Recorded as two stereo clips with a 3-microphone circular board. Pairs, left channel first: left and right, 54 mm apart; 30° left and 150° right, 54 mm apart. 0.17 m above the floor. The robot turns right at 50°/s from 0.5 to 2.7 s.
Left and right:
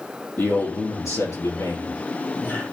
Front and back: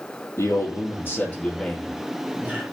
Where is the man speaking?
50° left, 4 m; by 2.6 s 155° left, 4 m.